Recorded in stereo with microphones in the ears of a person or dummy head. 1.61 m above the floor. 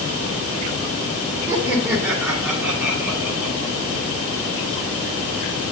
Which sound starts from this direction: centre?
Laughter, at 1.5 s.